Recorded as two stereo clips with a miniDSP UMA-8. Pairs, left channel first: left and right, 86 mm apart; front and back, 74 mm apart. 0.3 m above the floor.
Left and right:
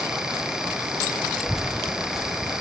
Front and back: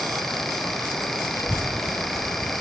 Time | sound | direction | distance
1.4 | a child speaking | 5° right | 0.7 m